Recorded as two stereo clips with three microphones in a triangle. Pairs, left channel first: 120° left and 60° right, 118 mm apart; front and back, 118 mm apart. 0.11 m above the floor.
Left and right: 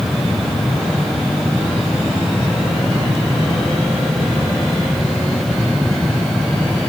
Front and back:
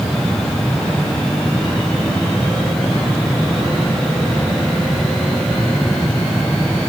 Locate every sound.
Only background noise.